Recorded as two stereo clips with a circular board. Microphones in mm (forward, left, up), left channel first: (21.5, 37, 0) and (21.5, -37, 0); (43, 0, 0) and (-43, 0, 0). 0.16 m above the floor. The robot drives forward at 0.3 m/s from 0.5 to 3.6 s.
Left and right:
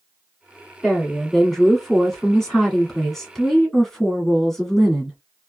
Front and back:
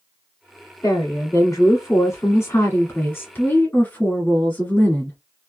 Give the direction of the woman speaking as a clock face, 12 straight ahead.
12 o'clock.